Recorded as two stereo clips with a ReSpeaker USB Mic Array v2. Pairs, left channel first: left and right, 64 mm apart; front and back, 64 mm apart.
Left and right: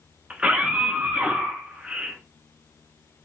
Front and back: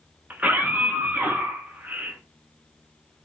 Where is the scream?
145° right, 1.2 m.